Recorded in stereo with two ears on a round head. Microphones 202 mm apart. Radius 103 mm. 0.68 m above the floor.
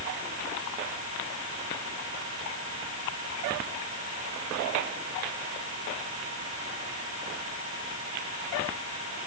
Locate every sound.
Only background noise.